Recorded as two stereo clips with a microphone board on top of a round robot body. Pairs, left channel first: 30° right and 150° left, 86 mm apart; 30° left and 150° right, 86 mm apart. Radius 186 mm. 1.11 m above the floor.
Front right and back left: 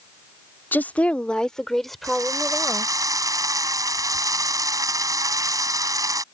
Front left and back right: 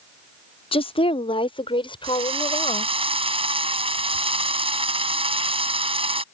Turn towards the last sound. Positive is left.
turn(degrees=-160)